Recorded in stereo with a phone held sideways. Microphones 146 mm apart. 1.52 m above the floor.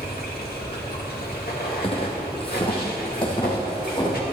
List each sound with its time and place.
0.0 s running water: 80° left, 2 m
1.8 s footsteps: 40° left (ahead or behind), 2.5 m; by 4.2 s 30° left (ahead or behind), 5 m